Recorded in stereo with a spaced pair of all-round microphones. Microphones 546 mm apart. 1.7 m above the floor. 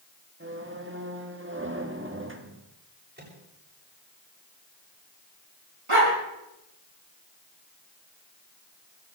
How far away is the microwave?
About 7.5 m.